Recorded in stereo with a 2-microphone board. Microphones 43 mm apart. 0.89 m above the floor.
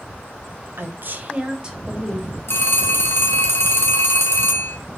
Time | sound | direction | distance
0.8 | a woman speaking | 60° right (ahead or behind) | 0.5 m
2.5 | a phone ringing | 70° left (ahead or behind) | 0.6 m